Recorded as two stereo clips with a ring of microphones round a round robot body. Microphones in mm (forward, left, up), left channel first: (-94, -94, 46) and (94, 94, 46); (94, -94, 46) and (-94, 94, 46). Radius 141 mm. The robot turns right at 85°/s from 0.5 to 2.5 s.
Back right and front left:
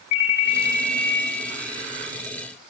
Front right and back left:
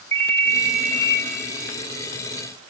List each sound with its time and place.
0.1 s a ringtone: 130° right, 2.0 m; by 1.2 s 70° right, 2.0 m